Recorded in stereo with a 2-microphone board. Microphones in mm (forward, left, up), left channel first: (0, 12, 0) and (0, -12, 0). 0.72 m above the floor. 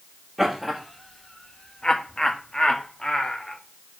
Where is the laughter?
Centre (ahead or behind), 1.1 m; by 3.6 s 35° left (ahead or behind), 1.8 m.